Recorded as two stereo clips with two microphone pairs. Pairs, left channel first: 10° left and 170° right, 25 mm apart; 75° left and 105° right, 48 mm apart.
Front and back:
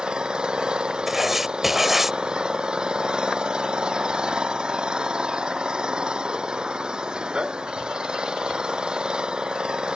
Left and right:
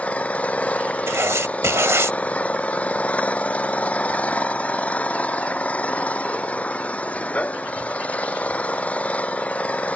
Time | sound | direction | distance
0.0 | an engine running | 135° left | ?
1.1 | writing | 90° right | ?